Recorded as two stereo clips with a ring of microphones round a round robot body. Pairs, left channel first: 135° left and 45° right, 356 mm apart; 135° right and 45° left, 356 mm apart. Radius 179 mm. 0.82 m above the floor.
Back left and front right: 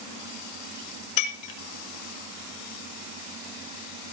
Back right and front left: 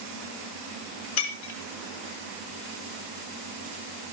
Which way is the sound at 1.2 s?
175° left.